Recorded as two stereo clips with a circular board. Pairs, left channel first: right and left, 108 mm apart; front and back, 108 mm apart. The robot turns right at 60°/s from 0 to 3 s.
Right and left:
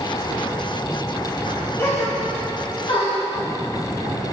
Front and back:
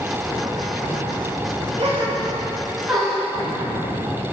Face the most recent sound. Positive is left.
turn(degrees=-85)